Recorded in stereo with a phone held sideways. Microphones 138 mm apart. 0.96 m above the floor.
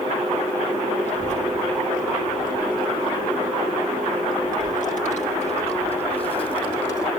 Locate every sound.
1.1 s a child speaking: 55° left (ahead or behind), 2.5 m; by 7.1 s 30° left (ahead or behind), 2.5 m